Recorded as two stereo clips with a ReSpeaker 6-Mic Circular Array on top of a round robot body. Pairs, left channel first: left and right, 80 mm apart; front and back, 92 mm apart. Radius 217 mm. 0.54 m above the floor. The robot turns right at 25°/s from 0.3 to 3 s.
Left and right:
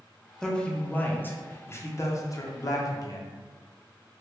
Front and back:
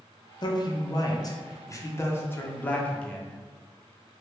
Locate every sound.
0.4 s a man speaking: 10° left, 0.9 m; by 3.3 s 75° left, 0.9 m